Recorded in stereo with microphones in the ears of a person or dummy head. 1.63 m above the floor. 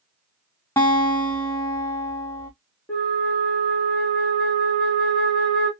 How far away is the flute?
About 1.4 m.